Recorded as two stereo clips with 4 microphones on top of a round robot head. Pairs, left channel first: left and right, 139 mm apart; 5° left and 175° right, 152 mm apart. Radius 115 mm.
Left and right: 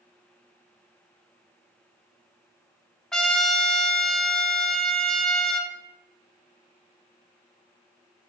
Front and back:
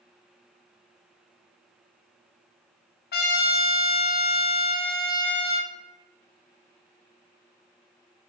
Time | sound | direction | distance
3.1 | a trumpet | 5° left | 0.5 m